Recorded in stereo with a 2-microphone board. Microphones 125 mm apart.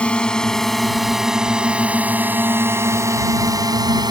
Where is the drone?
10° left (ahead or behind); by 4.1 s 35° right (ahead or behind).